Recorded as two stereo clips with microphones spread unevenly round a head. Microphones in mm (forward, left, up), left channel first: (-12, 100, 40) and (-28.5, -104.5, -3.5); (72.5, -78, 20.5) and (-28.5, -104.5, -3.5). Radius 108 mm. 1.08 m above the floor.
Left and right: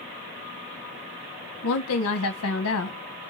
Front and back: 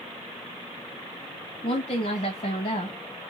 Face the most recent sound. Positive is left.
turn(degrees=70)